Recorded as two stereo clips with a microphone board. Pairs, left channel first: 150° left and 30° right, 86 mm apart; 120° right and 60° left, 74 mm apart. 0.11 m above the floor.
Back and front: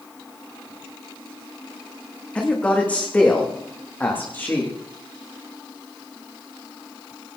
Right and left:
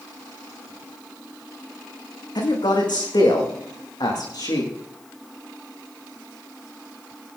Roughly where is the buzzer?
I don't hear a buzzer.